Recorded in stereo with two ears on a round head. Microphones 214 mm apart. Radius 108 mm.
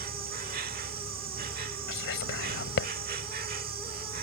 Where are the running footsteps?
No running footsteps in this recording.